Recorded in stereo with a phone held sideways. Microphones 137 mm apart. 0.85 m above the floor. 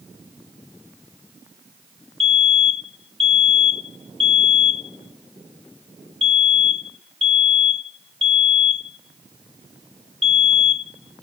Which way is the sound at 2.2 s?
50° right (ahead or behind).